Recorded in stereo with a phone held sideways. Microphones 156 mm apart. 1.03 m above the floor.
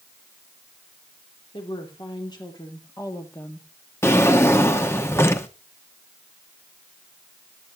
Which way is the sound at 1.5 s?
35° left (ahead or behind).